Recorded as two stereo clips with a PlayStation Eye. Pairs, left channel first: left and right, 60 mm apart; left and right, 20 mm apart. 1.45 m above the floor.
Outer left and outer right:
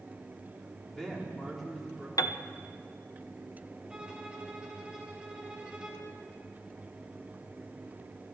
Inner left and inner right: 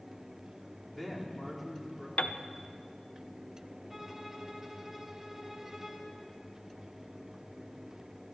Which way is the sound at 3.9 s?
15° right (ahead or behind).